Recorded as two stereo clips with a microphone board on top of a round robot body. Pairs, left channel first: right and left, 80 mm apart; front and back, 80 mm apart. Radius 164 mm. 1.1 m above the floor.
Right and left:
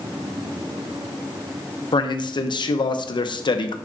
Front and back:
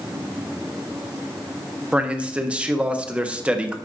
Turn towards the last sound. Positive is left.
turn(degrees=-105)